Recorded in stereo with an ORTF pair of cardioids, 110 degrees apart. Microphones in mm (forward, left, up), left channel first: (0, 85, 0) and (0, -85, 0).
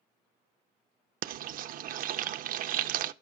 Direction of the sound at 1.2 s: 60° right.